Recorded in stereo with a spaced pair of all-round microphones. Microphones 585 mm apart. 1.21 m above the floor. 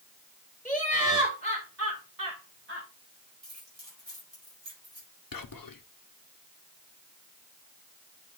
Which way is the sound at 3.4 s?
50° right (ahead or behind).